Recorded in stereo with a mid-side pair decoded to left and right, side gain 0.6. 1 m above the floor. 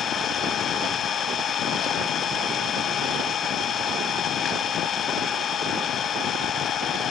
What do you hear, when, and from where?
0.0 s an engine running: 45° left, 3 m